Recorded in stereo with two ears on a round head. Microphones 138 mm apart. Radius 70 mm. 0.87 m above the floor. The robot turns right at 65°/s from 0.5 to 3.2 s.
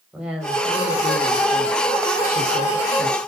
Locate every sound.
0.1 s a woman speaking: 5° right, 5 m; by 3.2 s 170° left, 5 m